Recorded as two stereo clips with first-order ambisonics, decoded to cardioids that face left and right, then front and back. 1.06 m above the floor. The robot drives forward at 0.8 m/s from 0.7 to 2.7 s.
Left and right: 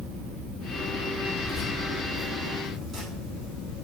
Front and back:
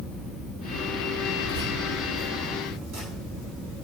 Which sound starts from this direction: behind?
Keys jangling, at 1.4 s.